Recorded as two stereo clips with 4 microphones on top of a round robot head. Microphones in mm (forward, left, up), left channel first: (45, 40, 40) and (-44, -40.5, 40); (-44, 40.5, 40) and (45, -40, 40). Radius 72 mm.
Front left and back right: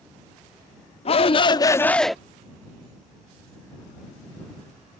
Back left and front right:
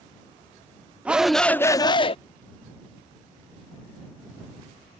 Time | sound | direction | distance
1.1 | a shout | 35° left | ?